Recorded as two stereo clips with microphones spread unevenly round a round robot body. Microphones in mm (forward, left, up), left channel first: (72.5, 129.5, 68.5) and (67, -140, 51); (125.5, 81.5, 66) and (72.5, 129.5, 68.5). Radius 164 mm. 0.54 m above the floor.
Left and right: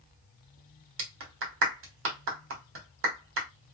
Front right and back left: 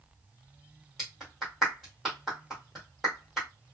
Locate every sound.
1.0 s a clap: 130° right, 1.5 m